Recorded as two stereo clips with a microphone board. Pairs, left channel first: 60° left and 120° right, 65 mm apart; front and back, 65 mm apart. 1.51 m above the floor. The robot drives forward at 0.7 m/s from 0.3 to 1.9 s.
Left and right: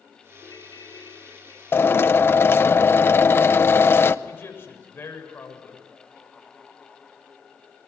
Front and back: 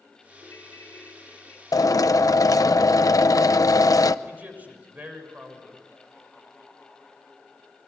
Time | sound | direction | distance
0.4 | a ringtone | 50° left | 5 m
1.7 | a drill | 10° left | 0.8 m
4.2 | a man speaking | 115° left | 6.5 m